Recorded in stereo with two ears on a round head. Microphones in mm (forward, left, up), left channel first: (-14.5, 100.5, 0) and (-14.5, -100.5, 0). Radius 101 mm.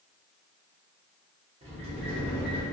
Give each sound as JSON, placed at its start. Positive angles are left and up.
{"t": 1.6, "sound": "a sliding door", "side_deg": -30, "distance_m": 0.8}